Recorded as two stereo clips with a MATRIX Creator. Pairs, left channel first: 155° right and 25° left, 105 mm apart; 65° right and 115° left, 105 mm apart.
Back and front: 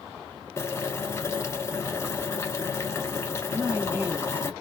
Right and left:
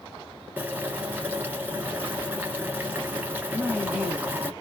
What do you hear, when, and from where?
0.6 s boiling: 170° left, 1.1 m
3.5 s a woman speaking: 40° left, 1.7 m